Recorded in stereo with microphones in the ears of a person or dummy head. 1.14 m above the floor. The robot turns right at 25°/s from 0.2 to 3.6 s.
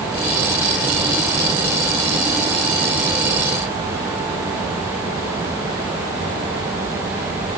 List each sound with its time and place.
Only background noise.